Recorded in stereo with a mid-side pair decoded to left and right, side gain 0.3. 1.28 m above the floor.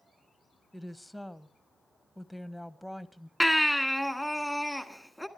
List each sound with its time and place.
0.7 s a woman speaking: 5° right, 1.3 m
3.4 s a baby crying: 5° right, 1.7 m